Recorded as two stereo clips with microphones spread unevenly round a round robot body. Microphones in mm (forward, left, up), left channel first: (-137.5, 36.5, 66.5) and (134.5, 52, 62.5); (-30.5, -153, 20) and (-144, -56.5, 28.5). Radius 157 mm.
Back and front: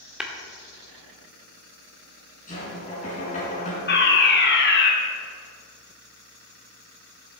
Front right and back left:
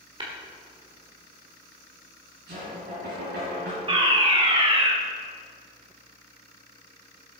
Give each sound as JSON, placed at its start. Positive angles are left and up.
{"t": 0.2, "sound": "tapping", "azimuth_deg": 90, "distance_m": 1.8}
{"t": 2.5, "sound": "knocking", "azimuth_deg": 120, "distance_m": 4.5}
{"t": 3.9, "sound": "a fire alarm", "azimuth_deg": 170, "distance_m": 2.0}